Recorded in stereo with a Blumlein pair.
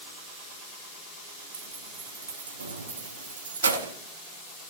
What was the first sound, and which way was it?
Keys jangling, 70° right.